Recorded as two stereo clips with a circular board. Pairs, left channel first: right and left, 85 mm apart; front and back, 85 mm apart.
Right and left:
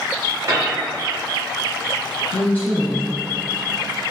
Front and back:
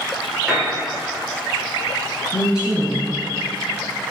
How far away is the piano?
About 1.8 m.